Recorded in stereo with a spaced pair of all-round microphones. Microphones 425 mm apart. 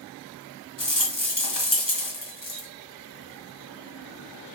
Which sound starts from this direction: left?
A rattle, at 0.8 s.